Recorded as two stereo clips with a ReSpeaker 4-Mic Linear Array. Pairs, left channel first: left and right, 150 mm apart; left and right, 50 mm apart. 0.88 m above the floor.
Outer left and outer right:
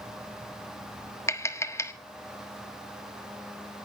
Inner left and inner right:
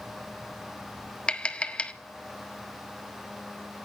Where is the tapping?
20° left (ahead or behind), 1.3 m.